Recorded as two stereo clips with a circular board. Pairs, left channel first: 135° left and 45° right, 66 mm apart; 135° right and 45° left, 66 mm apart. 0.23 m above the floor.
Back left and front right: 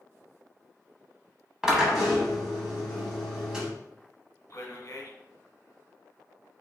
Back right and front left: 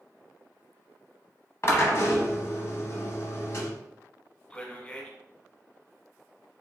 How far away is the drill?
About 0.9 m.